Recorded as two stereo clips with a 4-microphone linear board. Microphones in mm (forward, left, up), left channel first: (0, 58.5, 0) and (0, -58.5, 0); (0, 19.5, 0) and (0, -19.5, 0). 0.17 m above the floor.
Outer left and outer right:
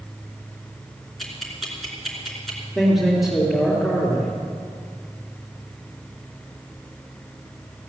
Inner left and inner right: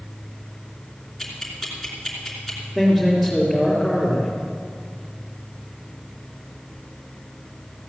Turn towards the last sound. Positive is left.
turn(degrees=0)  # may be behind; listen again after turning